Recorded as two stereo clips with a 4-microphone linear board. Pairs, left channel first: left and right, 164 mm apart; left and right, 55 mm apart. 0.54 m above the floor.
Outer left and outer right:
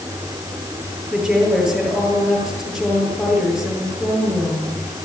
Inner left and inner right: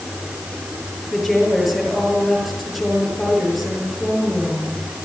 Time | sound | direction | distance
1.1 | a woman speaking | centre (ahead or behind) | 9.5 m